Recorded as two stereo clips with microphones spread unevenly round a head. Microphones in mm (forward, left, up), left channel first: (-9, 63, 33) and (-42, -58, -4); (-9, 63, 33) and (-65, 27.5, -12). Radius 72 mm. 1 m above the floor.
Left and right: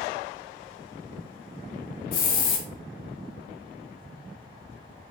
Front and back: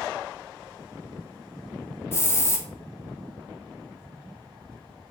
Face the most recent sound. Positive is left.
turn(degrees=95)